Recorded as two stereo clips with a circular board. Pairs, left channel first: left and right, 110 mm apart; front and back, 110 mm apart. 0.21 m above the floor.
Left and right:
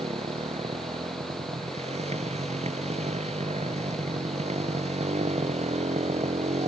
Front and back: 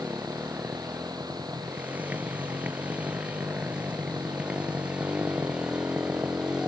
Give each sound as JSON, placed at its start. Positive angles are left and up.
{"t": 0.0, "sound": "a motorcycle", "azimuth_deg": -105}